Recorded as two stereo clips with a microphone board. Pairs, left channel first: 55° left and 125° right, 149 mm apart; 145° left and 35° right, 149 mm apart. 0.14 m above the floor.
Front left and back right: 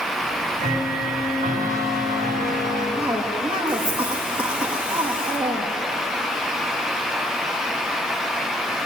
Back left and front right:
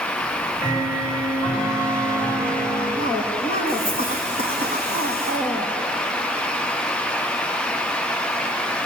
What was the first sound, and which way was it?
Ticking, 155° right.